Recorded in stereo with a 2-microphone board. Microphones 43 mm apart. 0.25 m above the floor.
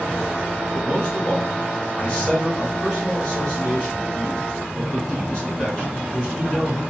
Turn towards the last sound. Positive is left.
turn(degrees=15)  # may be behind; listen again after turning